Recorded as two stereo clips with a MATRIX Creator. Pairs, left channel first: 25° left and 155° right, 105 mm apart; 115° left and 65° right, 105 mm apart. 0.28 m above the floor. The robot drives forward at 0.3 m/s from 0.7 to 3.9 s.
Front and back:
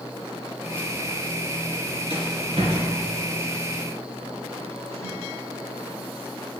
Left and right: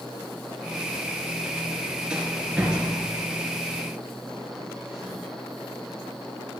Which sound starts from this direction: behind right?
A rattle, at 2.1 s.